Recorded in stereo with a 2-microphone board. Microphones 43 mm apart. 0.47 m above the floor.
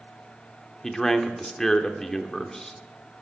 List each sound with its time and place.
0.8 s a man speaking: 10° left (ahead or behind), 0.8 m